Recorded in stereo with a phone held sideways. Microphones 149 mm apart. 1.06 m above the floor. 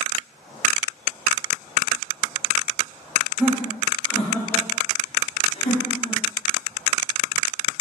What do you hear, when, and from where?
3.4 s laughter: 10° right (ahead or behind), 1.1 m; by 6.2 s 50° left (ahead or behind), 1.1 m